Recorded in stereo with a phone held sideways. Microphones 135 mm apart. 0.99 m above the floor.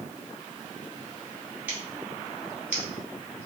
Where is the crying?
No crying in this recording.